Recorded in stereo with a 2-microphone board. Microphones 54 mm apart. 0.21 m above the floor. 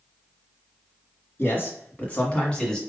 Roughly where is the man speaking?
Left.